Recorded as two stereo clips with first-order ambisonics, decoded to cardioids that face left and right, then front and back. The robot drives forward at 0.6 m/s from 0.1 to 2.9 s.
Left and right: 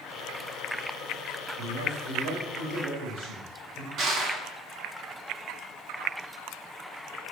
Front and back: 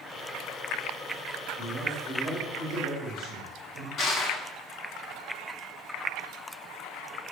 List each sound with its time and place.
1.6 s a man speaking: 110° right, 3 m; by 3.9 s 120° right, 3.5 m
4.0 s crushing: 50° right, 1.5 m